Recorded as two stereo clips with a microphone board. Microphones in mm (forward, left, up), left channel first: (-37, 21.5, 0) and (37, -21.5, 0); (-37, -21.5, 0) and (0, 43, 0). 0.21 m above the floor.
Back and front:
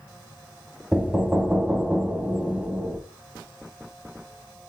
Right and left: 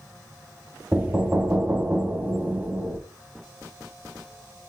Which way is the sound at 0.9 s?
25° left.